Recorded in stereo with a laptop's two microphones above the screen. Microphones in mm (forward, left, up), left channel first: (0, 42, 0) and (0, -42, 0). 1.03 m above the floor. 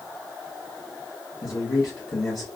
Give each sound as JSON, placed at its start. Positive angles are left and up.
{"t": 1.4, "sound": "a man speaking", "side_deg": 50, "distance_m": 1.0}